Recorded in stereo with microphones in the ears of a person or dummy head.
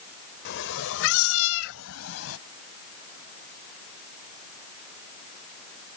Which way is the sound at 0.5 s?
60° left (ahead or behind).